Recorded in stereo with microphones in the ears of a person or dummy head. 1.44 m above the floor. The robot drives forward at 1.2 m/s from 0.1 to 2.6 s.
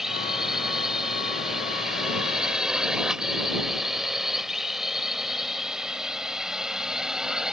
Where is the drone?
Centre (ahead or behind).